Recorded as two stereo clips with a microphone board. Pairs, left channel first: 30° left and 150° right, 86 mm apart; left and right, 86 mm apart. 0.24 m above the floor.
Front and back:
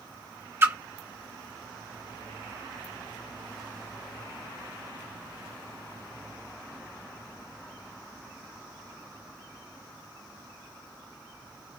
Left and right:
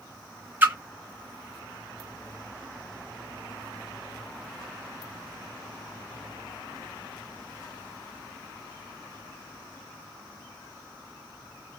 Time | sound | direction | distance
0.6 | a splash | 130° right | 0.7 m